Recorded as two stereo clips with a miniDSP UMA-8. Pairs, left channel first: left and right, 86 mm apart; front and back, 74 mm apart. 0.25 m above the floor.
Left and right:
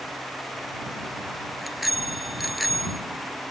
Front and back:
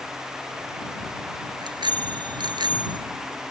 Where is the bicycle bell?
Straight behind.